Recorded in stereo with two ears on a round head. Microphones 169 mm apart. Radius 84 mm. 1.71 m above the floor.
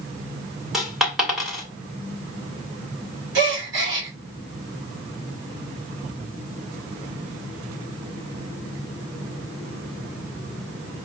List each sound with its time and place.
0.7 s a dropped coin: centre (ahead or behind), 1.4 m
3.4 s a gasp: 70° right (ahead or behind), 2.5 m